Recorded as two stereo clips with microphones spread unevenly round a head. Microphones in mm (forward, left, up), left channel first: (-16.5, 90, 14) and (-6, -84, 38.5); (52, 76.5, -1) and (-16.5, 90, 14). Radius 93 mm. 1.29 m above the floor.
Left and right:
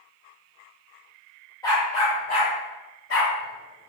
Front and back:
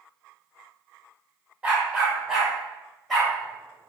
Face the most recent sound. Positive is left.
turn(degrees=80)